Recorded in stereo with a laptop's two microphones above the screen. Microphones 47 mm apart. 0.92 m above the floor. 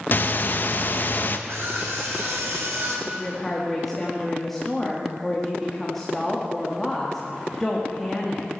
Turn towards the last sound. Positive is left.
turn(degrees=5)  # may be behind; listen again after turning